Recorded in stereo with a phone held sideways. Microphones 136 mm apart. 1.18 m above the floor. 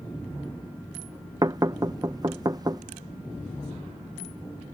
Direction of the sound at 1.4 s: 30° right (ahead or behind).